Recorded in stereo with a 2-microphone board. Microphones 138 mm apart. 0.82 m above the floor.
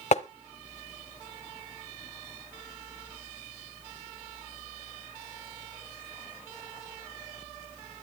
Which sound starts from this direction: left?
Tapping, at 0.1 s.